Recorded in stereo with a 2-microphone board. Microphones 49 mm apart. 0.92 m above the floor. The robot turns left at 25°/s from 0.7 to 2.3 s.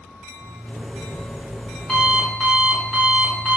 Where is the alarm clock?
45° left, 4 m; by 3.6 s 5° left, 4 m.